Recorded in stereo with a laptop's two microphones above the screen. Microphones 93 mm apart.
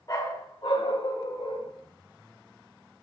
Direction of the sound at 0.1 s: 40° left (ahead or behind).